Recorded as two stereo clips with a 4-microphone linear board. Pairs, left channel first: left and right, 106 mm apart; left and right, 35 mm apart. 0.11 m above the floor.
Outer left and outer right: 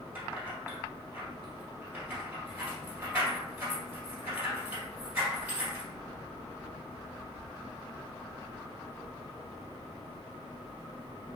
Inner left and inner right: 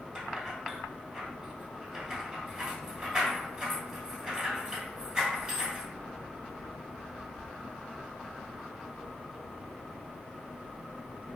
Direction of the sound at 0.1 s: 20° right (ahead or behind).